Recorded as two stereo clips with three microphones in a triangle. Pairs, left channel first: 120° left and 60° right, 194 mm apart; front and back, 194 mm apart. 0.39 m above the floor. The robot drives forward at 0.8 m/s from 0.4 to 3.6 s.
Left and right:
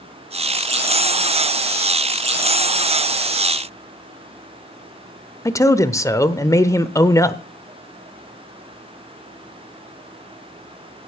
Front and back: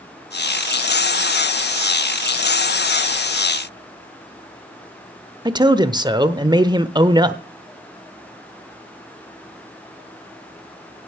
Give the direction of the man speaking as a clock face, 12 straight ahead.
7 o'clock.